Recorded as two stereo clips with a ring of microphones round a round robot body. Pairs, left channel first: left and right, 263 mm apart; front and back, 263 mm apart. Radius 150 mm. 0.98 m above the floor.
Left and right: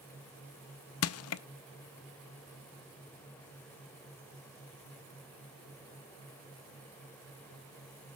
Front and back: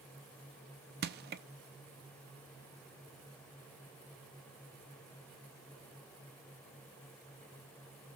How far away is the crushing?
About 0.5 m.